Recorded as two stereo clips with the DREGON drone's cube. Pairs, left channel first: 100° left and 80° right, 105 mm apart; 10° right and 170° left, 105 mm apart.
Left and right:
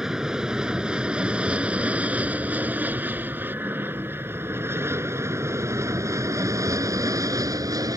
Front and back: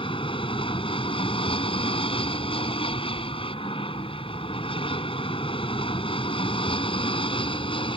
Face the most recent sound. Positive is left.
turn(degrees=-30)